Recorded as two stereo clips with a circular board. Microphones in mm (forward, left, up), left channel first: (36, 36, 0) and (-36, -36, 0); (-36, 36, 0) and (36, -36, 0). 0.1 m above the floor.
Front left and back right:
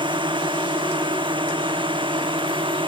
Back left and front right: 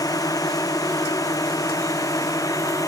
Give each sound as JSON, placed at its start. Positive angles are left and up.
{"t": 0.0, "sound": "a drone", "azimuth_deg": -175}